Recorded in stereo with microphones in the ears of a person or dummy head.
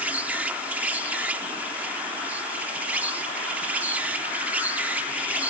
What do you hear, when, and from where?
0.0 s an insect: 10° right (ahead or behind)